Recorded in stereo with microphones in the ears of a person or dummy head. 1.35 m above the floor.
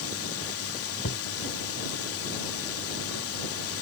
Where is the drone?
70° left (ahead or behind).